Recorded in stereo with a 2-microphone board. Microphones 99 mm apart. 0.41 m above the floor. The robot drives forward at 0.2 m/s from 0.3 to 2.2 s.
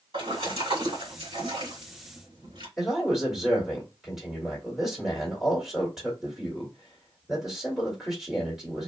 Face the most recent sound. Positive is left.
turn(degrees=-5)  # may be behind; listen again after turning